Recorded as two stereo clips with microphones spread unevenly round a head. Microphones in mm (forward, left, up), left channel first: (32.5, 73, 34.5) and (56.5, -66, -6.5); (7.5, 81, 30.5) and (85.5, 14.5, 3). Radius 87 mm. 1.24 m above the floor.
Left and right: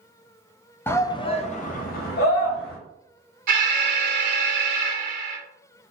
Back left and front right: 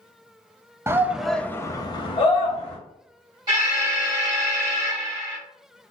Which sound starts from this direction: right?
An alarm, at 3.5 s.